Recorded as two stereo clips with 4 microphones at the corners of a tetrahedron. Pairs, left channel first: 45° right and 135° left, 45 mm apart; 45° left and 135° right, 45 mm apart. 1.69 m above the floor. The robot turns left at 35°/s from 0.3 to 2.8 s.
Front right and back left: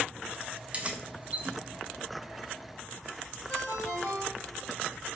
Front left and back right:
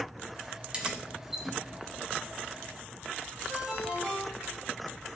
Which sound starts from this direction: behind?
Keys jangling, at 0.7 s.